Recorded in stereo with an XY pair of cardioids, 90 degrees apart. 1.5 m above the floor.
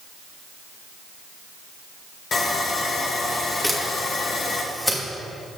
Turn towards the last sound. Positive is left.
turn(degrees=5)